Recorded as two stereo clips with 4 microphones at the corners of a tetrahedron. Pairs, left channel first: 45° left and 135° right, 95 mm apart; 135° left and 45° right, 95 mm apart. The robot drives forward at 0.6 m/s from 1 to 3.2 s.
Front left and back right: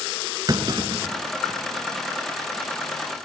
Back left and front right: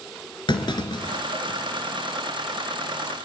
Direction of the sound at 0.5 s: 175° left.